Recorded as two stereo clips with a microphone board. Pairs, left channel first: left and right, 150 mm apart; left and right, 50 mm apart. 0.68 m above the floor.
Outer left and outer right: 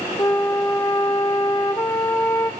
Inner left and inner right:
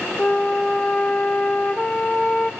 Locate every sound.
0.2 s a flute: 25° left (ahead or behind), 0.9 m